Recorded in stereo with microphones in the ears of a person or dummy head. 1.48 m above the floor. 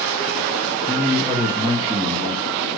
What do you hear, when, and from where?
0.9 s a man speaking: centre (ahead or behind), 0.6 m; by 2.7 s 35° right (ahead or behind), 1.5 m